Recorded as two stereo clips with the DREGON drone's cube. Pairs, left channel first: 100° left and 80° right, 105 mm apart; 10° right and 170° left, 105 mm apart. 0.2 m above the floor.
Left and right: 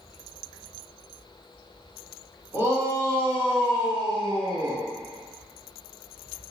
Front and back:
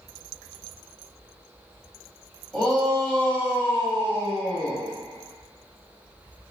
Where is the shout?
90° right, 1.7 m; by 4.8 s 60° right, 2.5 m.